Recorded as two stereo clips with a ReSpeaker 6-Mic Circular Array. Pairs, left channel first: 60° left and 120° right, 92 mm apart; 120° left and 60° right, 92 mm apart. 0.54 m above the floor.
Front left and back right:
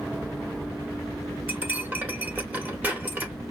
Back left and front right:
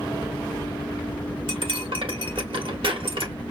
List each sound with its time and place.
1.5 s cutlery clinking: 50° right, 1.1 m